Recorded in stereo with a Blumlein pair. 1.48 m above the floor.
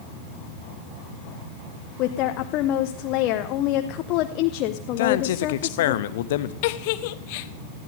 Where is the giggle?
50° left, 0.7 m.